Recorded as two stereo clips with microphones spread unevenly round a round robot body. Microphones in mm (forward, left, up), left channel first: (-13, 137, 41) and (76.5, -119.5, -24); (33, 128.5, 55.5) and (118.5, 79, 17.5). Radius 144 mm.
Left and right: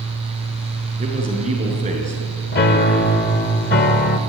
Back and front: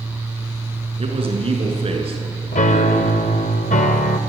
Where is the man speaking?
5° right, 6.5 m.